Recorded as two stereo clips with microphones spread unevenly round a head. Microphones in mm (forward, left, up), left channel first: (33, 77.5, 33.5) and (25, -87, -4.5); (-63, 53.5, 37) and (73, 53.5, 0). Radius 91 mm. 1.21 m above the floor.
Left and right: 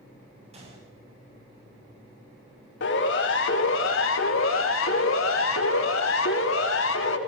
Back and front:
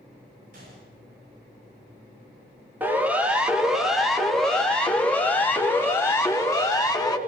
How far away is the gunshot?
About 8.5 m.